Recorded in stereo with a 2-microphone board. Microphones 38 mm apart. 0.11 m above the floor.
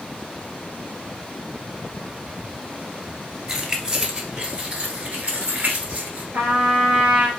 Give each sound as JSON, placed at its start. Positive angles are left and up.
{"t": 3.5, "sound": "keys jangling", "side_deg": -15, "distance_m": 1.5}
{"t": 6.3, "sound": "a trumpet", "side_deg": -45, "distance_m": 2.5}